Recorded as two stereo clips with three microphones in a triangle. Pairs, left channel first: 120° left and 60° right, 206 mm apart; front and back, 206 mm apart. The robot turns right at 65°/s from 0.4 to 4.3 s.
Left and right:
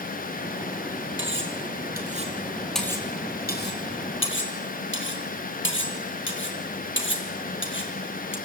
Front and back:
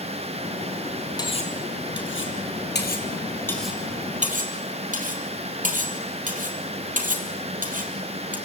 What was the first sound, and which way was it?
Cutlery clinking, 70° right.